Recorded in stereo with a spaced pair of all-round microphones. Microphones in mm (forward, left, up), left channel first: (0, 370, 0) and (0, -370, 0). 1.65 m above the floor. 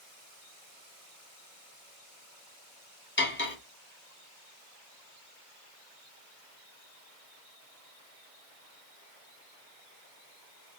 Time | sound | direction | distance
3.2 | cutlery clinking | 15° left (ahead or behind) | 0.8 m